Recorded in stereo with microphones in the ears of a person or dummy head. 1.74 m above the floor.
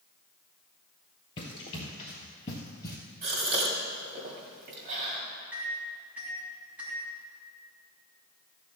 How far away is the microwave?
About 3 m.